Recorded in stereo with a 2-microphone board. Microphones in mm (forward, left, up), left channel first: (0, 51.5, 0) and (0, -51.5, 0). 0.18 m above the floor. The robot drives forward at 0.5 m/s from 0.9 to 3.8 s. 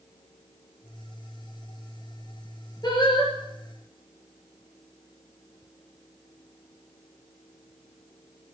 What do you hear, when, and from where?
2.8 s singing: 40° left (ahead or behind), 3.5 m; by 3.3 s 45° left (ahead or behind), 3.5 m